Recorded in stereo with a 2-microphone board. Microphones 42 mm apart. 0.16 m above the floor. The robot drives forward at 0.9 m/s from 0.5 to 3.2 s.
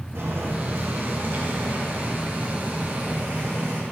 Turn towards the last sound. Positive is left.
turn(degrees=-35)  # may be behind; listen again after turning